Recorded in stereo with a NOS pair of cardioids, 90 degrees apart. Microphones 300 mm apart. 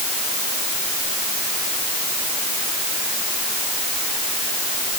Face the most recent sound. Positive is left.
No sound to turn to.